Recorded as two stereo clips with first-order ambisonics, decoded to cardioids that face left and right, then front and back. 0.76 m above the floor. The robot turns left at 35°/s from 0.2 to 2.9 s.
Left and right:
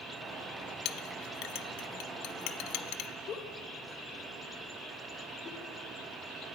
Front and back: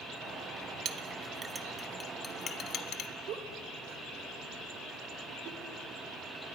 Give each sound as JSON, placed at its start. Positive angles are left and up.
{"t": 0.8, "sound": "a clink", "azimuth_deg": 125, "distance_m": 1.0}
{"t": 3.3, "sound": "a giggle", "azimuth_deg": 145, "distance_m": 2.5}